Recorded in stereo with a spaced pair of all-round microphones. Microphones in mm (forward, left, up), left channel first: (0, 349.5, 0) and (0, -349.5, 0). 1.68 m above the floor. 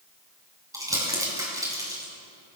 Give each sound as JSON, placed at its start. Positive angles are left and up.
{"t": 0.7, "sound": "crumpling", "side_deg": -5, "distance_m": 5.5}